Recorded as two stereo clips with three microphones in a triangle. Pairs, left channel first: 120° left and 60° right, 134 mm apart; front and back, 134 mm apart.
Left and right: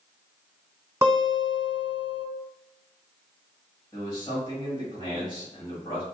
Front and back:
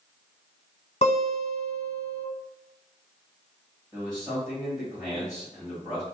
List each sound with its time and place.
1.0 s a guitar: straight ahead, 1.1 m
3.9 s a man speaking: 125° left, 1.5 m